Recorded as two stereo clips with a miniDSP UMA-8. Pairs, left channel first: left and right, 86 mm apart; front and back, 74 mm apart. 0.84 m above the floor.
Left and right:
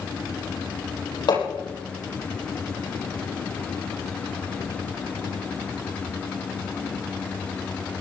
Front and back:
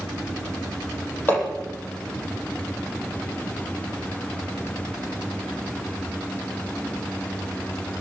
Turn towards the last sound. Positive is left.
turn(degrees=60)